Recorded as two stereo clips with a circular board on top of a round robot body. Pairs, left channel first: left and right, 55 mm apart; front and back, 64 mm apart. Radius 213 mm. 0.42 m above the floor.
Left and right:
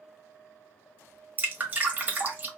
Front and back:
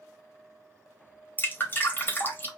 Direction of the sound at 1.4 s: 45° right.